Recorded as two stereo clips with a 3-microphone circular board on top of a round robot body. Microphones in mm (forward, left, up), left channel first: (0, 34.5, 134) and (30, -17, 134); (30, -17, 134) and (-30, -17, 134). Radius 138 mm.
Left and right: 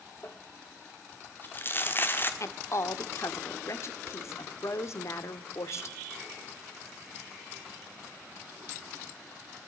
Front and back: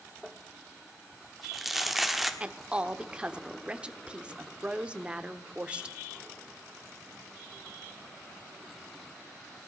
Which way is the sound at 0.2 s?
95° left.